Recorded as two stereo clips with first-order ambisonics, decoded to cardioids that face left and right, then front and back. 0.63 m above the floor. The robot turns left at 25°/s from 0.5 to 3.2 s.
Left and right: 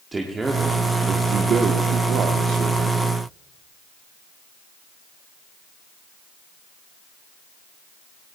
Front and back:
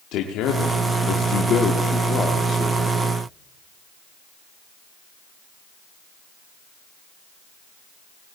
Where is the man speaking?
15° right, 1.3 m; by 3.0 s 80° right, 1.3 m.